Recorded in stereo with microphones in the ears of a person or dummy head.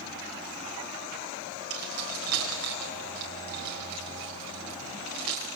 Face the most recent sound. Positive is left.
turn(degrees=-85)